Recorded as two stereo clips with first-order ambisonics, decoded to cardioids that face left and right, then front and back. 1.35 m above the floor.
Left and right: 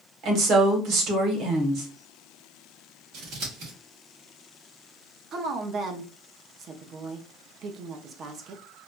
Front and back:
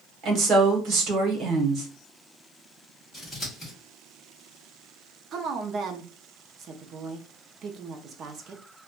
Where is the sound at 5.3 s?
135° right, 0.5 m.